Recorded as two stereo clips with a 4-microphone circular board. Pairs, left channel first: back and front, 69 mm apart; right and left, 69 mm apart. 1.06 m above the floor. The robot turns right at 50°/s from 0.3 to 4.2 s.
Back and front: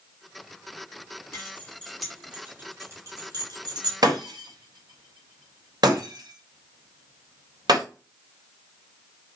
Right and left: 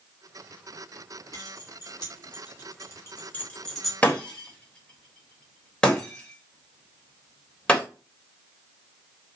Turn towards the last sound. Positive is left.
turn(degrees=-15)